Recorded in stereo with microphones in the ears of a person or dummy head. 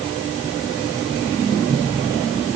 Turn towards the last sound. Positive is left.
No sound to turn to.